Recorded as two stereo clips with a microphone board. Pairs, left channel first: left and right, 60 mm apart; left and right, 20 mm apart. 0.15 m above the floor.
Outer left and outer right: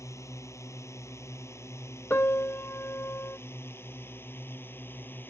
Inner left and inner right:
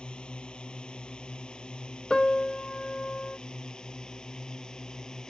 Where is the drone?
55° left (ahead or behind); by 5.3 s 35° left (ahead or behind).